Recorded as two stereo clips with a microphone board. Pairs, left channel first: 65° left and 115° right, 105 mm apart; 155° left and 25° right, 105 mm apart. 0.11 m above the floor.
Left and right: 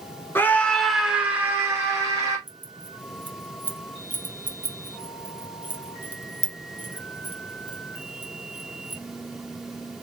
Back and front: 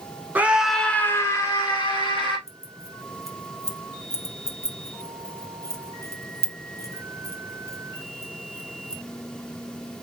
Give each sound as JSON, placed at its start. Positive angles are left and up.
{"t": 0.3, "sound": "a scream", "azimuth_deg": 30, "distance_m": 1.1}
{"t": 2.5, "sound": "keys jangling", "azimuth_deg": -175, "distance_m": 1.0}